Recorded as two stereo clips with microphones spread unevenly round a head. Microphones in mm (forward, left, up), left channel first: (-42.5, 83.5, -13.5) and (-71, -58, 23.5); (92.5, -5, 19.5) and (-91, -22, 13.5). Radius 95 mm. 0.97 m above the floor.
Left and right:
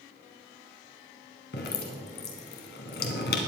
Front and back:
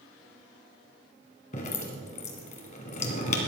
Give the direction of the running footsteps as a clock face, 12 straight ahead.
No running footsteps in this recording.